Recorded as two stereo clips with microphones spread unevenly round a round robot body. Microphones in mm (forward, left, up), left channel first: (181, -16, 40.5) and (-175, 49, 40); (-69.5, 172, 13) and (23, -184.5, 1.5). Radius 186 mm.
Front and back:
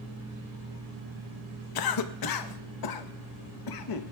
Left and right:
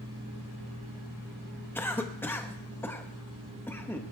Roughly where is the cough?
Ahead.